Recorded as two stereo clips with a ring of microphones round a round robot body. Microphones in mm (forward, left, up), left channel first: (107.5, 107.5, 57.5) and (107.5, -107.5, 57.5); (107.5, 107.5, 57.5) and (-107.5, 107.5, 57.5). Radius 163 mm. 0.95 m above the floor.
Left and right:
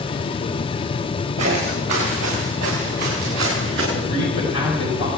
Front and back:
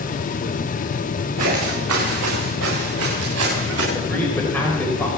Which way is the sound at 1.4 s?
160° right.